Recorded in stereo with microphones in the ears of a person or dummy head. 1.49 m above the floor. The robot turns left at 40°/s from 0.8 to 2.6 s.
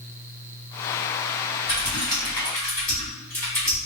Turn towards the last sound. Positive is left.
turn(degrees=10)  # may be behind; listen again after turning